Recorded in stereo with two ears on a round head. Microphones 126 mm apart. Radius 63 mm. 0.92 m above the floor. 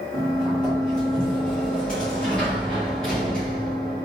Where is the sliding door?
5° left (ahead or behind), 1.5 m.